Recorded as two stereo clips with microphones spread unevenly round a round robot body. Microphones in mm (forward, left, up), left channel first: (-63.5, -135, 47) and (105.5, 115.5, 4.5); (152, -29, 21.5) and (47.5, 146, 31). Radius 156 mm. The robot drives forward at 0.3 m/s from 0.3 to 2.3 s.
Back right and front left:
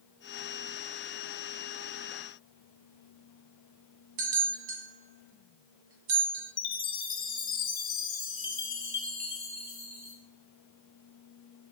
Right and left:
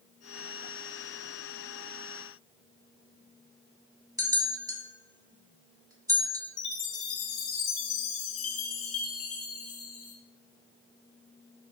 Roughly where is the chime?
Ahead right.